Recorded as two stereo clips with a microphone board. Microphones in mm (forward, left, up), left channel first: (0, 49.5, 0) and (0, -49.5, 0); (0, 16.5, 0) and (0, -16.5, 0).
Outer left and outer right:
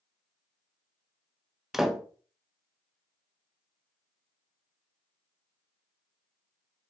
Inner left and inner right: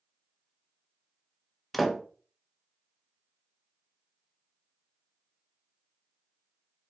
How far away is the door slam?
About 1.0 m.